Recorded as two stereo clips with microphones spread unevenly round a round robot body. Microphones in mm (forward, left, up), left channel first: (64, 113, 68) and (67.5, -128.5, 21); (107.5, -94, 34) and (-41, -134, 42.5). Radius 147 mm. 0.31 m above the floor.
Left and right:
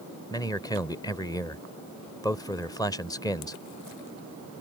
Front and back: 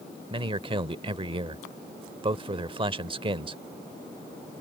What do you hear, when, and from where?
0.3 s a man speaking: 175° left